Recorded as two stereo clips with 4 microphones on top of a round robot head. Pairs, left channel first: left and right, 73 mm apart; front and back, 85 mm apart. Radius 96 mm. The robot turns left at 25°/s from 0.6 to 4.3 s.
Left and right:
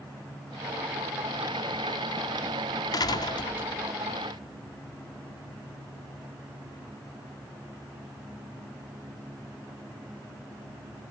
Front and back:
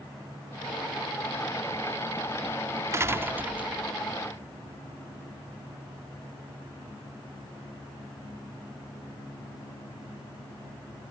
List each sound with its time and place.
2.9 s a door slam: 120° left; by 3.9 s 95° left